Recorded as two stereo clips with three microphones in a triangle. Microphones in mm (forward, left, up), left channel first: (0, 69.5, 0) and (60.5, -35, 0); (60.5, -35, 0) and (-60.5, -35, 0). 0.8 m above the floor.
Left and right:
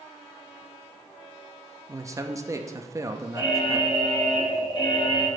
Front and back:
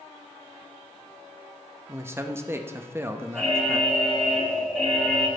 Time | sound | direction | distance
1.9 | a man speaking | 115° right | 0.5 m
3.4 | an alarm | 80° left | 1.4 m